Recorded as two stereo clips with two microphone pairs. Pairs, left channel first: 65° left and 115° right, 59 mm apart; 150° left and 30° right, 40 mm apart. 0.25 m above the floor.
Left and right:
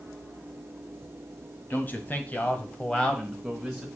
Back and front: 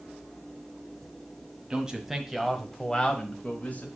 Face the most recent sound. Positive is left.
turn(degrees=160)